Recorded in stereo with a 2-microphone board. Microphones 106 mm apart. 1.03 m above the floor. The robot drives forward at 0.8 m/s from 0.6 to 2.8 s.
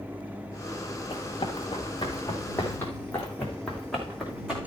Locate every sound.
1.1 s running footsteps: 60° left (ahead or behind), 4 m; by 4.6 s 5° right (ahead or behind), 3.5 m